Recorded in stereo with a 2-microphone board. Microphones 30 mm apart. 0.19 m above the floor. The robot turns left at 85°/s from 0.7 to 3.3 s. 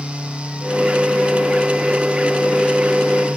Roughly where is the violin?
No violin in this recording.